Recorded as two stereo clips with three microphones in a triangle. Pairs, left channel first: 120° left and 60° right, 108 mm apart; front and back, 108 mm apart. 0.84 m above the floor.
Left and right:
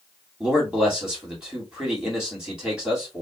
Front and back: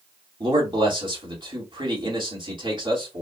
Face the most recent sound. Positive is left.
turn(degrees=-145)